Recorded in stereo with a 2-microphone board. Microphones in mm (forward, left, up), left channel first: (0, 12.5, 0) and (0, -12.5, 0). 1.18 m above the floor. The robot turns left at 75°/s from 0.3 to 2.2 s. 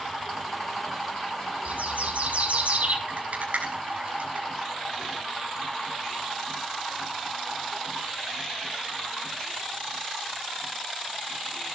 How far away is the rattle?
About 6.5 m.